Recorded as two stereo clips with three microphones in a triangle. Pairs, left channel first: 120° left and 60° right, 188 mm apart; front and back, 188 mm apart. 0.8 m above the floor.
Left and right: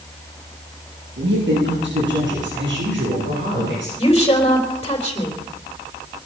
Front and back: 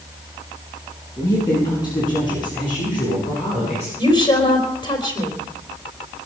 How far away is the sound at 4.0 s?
About 3.5 m.